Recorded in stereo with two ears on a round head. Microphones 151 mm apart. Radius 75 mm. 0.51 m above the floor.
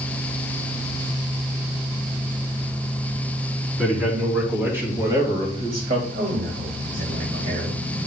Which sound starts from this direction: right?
A man speaking, at 6.1 s.